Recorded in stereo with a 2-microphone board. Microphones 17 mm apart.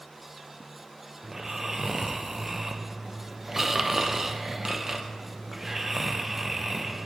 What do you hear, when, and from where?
1.2 s snoring: 25° right (ahead or behind), 0.5 m